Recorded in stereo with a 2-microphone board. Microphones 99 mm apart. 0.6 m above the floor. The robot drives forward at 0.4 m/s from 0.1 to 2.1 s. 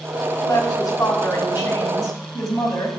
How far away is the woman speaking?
About 4 m.